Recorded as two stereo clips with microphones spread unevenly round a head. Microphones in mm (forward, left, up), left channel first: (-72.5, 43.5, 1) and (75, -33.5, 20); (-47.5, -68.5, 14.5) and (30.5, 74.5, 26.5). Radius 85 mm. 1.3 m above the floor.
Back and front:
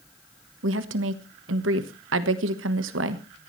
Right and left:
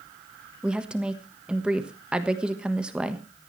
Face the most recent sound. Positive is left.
turn(degrees=-25)